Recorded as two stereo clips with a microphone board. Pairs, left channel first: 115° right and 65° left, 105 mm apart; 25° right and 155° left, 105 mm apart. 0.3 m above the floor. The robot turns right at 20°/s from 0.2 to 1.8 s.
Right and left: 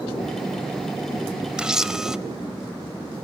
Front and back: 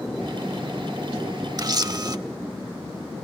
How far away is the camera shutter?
About 0.8 m.